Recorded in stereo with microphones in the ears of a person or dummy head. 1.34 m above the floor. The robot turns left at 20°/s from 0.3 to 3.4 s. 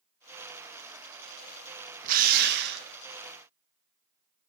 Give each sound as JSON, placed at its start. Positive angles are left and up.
{"t": 2.0, "sound": "a drill", "side_deg": -50, "distance_m": 1.1}